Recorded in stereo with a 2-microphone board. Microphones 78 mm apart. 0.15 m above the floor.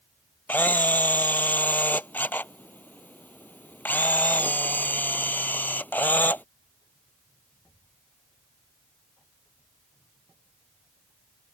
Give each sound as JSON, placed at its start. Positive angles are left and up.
{"t": 0.5, "sound": "a camera shutter", "side_deg": 25}